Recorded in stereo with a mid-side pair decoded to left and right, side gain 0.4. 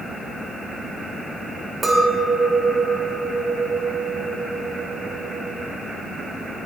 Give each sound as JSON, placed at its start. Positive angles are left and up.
{"t": 1.8, "sound": "a clink", "azimuth_deg": -25, "distance_m": 2.0}